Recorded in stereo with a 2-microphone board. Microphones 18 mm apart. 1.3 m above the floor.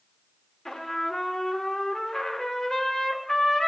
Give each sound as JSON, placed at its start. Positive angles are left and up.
{"t": 0.7, "sound": "a trumpet", "side_deg": 15, "distance_m": 1.3}